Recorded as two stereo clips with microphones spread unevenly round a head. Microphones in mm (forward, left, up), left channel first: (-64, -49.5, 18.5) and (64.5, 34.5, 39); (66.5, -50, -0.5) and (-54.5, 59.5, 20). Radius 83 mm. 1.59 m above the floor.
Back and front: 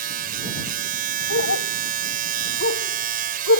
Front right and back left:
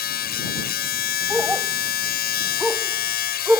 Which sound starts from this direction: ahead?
A machine running, at 0.0 s.